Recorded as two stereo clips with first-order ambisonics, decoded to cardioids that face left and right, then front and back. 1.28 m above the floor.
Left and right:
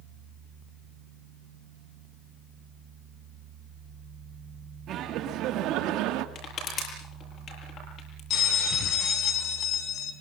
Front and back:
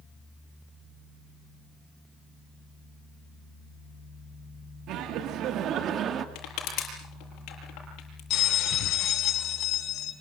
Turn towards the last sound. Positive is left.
turn(degrees=40)